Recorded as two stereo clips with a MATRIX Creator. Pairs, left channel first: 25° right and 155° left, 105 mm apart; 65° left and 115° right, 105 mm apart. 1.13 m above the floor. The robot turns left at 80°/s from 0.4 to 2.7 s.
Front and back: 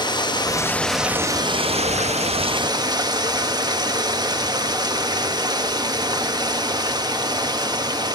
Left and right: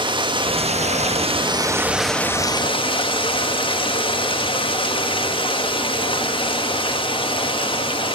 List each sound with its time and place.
0.0 s running water: 70° right, 1.5 m; by 8.2 s 105° left, 1.5 m